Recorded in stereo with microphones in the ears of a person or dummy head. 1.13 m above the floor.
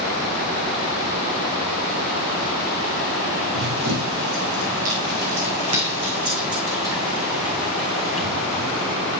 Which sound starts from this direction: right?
Running footsteps, at 3.5 s.